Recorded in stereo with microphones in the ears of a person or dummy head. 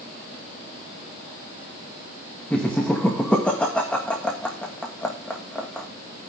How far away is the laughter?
About 1.7 m.